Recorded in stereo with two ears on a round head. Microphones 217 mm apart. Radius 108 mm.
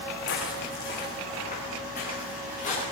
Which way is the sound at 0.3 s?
45° left (ahead or behind).